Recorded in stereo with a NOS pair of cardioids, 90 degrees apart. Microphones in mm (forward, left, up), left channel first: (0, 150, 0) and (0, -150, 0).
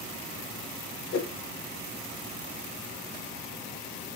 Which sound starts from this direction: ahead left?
A whoosh, at 1.1 s.